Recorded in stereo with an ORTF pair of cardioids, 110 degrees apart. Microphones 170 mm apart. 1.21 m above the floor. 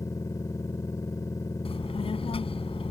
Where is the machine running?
20° left.